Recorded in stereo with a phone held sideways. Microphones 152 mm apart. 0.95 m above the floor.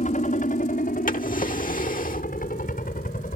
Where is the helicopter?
55° left (ahead or behind); by 3.4 s 65° left (ahead or behind).